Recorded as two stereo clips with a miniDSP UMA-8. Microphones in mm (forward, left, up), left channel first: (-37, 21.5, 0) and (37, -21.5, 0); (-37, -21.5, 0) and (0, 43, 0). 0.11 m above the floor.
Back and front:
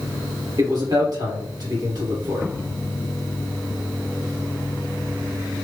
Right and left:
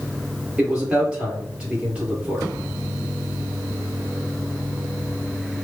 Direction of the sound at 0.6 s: 15° right.